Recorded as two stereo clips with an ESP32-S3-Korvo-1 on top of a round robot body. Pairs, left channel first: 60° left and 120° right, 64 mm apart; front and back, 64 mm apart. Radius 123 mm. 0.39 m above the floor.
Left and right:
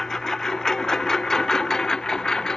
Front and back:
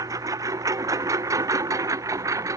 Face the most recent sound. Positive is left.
turn(degrees=140)